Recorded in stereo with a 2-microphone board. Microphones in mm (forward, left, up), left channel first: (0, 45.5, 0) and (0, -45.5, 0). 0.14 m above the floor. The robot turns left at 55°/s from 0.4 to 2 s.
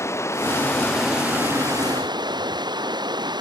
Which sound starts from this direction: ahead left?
Running water, at 0.0 s.